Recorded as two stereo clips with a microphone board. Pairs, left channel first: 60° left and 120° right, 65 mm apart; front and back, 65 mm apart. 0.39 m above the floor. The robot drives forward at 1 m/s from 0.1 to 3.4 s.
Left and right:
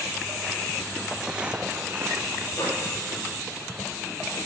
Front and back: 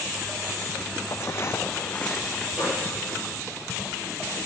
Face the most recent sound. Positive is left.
turn(degrees=105)